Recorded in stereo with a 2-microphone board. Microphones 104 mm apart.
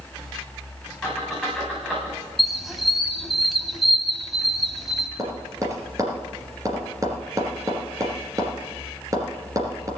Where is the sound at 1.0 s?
5° right (ahead or behind), 8.5 m.